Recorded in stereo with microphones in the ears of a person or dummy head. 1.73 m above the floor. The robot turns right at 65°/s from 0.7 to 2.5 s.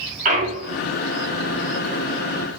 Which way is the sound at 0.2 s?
45° right (ahead or behind).